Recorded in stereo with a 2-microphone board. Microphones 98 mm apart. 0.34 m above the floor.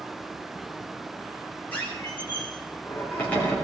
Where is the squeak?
15° left (ahead or behind), 4 m.